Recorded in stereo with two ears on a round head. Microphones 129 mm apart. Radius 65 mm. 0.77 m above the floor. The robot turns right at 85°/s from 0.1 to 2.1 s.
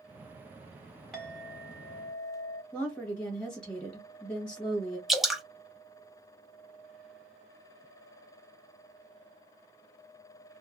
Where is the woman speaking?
10° left (ahead or behind), 1.1 m.